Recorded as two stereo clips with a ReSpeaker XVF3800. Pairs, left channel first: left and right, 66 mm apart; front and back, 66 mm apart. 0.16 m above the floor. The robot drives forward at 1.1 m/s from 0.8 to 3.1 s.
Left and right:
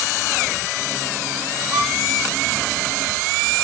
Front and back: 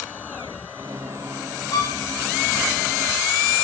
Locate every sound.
1.7 s a violin: 30° right, 8 m